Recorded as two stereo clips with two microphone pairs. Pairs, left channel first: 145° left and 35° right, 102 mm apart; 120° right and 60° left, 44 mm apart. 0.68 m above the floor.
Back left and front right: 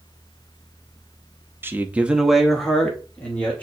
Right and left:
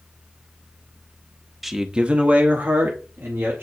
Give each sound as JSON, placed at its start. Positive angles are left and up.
{"t": 1.6, "sound": "a man speaking", "azimuth_deg": -25, "distance_m": 0.8}